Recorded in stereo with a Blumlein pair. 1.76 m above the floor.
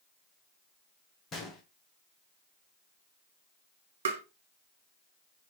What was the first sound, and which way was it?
A gunshot, 25° left.